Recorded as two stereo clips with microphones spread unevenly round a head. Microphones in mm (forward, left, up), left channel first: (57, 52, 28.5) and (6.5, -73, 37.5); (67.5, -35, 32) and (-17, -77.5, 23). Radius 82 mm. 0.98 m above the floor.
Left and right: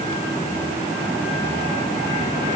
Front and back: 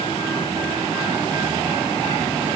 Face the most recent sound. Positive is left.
No sound to turn to.